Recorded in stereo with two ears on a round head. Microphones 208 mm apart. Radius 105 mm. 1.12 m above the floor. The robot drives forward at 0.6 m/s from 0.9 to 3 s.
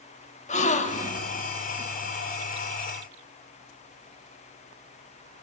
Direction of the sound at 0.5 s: 30° left (ahead or behind).